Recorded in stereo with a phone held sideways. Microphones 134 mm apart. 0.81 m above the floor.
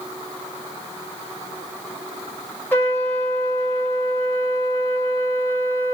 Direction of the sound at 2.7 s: 15° left (ahead or behind).